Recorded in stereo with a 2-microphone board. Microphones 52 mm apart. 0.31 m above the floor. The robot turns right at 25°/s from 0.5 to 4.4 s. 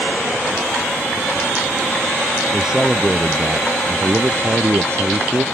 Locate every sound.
2.5 s a man speaking: 170° right; by 5.5 s 125° right